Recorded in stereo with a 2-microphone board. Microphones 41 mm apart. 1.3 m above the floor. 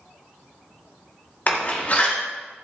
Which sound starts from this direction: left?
A door slam, at 1.5 s.